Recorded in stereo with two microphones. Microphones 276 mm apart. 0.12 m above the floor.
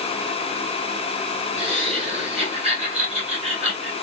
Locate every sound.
1.6 s laughter: 20° right (ahead or behind), 1.4 m